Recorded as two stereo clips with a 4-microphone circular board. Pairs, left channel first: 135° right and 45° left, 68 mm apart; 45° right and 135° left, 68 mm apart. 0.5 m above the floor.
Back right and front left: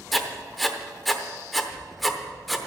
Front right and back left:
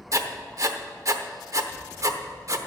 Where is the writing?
135° left, 0.9 m.